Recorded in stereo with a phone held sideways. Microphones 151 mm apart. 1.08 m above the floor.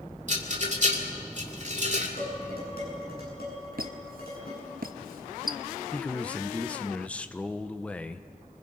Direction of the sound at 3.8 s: 75° right (ahead or behind).